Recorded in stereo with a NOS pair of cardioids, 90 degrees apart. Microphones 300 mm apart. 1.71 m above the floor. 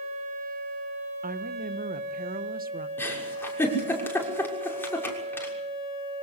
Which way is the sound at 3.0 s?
5° left.